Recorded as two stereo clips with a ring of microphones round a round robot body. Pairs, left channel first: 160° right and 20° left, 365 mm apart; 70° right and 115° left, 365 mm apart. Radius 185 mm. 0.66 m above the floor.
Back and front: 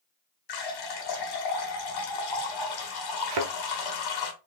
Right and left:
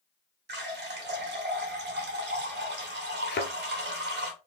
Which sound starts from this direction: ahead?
A thud, at 3.3 s.